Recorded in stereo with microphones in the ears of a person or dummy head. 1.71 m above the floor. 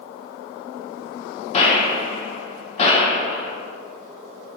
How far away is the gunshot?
About 1.7 m.